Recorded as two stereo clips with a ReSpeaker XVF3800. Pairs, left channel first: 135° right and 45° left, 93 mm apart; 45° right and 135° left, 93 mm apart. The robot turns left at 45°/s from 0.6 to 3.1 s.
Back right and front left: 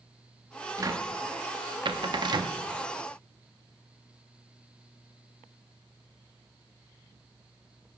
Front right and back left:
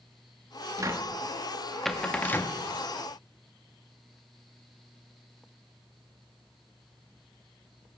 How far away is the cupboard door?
About 0.6 m.